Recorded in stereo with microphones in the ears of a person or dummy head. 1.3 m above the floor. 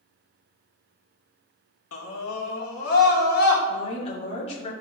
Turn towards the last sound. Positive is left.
turn(degrees=35)  # may be behind; listen again after turning